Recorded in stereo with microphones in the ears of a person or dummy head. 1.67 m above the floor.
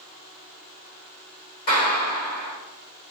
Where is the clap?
55° left (ahead or behind), 2 m.